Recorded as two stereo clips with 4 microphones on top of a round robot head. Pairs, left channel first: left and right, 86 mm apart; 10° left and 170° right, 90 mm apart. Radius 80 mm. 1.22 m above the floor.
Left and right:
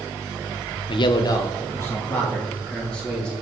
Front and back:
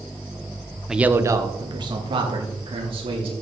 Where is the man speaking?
105° left, 1.0 m; by 3.3 s 170° left, 4 m.